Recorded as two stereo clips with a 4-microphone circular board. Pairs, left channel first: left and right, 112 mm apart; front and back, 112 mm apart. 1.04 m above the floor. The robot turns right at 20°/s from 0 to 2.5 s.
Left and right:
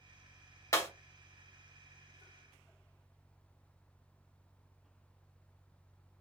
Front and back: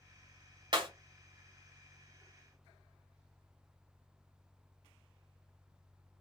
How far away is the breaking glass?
About 1.1 m.